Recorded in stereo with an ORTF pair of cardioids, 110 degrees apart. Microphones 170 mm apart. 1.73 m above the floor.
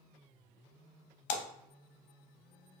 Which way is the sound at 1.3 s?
65° left.